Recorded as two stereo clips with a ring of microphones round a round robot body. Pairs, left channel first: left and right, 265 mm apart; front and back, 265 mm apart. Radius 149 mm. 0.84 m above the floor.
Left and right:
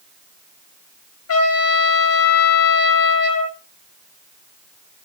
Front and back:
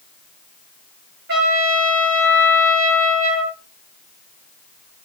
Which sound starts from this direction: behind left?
A trumpet, at 1.3 s.